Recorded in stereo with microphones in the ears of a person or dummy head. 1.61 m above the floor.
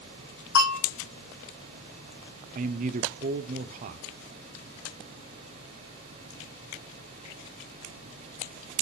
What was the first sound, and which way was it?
A bell, 70° left (ahead or behind).